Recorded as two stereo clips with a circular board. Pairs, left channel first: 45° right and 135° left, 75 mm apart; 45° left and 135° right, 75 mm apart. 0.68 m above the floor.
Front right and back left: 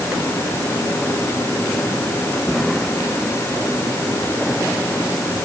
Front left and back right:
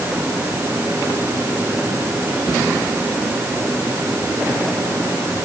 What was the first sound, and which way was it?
Only background noise.